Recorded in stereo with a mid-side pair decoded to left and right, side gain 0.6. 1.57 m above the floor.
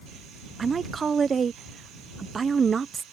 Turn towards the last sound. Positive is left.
turn(degrees=-30)